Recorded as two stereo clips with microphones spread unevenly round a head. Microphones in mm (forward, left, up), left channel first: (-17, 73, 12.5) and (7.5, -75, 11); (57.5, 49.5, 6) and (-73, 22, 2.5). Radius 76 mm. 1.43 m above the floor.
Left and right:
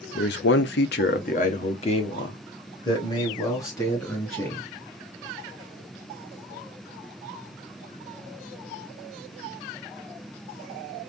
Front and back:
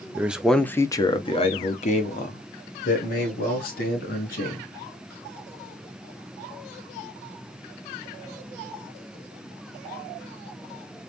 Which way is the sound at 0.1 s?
115° left.